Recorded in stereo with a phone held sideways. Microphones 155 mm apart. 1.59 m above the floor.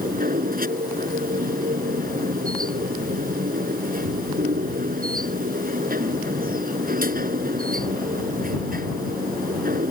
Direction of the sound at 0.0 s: 70° right (ahead or behind).